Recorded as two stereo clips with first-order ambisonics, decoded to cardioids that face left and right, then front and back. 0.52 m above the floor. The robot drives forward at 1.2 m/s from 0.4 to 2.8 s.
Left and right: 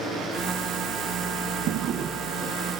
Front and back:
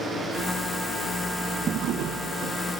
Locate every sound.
1.7 s a drawer: 120° right, 0.8 m; by 2.6 s 160° right, 1.6 m